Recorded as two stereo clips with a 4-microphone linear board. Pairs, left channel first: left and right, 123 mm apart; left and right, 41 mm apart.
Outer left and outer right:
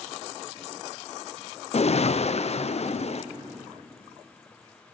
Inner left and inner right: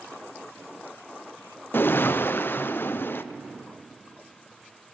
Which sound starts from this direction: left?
A whoosh, at 1.7 s.